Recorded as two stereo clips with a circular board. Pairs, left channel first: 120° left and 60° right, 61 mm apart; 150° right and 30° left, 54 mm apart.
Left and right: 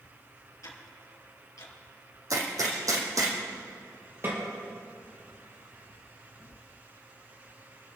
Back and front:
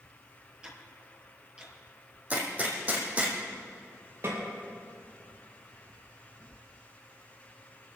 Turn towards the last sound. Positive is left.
turn(degrees=-5)